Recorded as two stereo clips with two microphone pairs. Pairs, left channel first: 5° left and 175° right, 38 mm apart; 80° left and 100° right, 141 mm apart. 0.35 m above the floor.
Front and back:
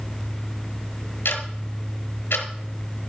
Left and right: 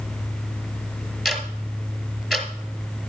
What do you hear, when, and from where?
1.2 s ticking: 15° right, 1.4 m